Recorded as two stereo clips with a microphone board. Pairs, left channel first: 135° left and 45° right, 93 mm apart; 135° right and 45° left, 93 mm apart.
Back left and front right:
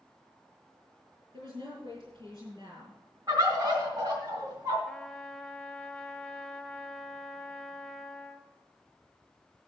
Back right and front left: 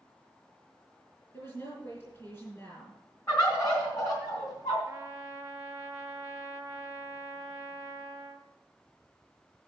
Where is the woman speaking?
80° right, 4.5 m.